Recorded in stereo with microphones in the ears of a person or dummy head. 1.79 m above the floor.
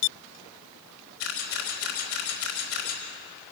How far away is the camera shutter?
About 3.5 m.